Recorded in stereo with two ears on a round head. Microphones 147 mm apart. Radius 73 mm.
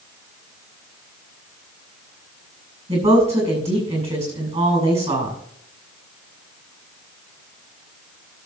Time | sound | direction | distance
2.9 | a woman speaking | 40° right (ahead or behind) | 7.5 m